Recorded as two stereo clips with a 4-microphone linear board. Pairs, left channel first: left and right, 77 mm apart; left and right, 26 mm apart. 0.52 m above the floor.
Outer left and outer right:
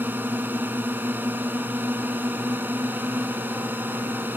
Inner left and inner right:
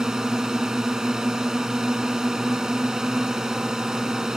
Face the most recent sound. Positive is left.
turn(degrees=-25)  # may be behind; listen again after turning